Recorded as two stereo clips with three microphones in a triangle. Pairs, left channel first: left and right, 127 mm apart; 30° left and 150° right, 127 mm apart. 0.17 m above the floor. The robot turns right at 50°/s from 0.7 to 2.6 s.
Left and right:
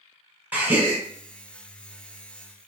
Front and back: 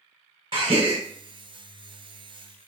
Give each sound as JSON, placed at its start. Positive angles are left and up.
{"t": 0.5, "sound": "a gasp", "azimuth_deg": -160, "distance_m": 1.1}